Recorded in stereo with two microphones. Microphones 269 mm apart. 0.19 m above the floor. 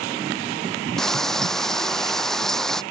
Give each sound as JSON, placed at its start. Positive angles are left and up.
{"t": 1.0, "sound": "frying", "side_deg": 0}